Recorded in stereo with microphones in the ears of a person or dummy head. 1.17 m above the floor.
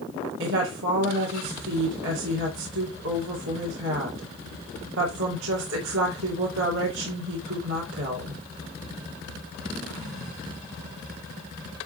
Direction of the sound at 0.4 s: 70° right (ahead or behind).